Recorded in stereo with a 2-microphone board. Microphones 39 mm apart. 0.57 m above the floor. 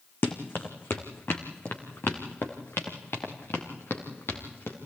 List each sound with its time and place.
0.2 s running footsteps: 65° left (ahead or behind), 1.9 m; by 4.8 s 80° left, 4 m